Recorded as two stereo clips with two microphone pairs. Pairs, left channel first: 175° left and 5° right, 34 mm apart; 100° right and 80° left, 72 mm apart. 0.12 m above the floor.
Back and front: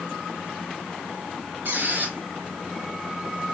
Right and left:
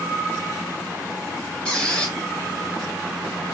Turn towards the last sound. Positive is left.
turn(degrees=-25)